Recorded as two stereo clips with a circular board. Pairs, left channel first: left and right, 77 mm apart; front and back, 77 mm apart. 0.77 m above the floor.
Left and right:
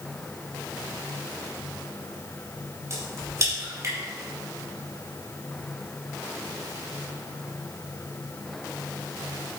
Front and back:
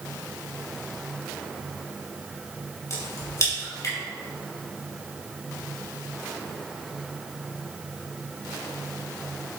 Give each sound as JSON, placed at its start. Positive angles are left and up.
{"t": 2.9, "sound": "a crack", "azimuth_deg": -45, "distance_m": 4.0}